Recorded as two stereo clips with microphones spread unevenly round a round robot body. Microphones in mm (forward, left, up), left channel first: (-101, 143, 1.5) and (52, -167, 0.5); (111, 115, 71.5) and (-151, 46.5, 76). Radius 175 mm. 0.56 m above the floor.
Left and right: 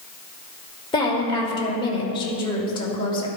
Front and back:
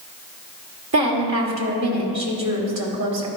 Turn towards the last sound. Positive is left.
turn(degrees=-170)